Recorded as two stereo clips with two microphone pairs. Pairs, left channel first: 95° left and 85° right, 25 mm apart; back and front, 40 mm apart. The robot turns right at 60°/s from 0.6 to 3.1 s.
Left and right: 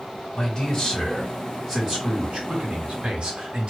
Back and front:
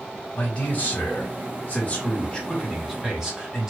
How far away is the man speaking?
About 1.4 m.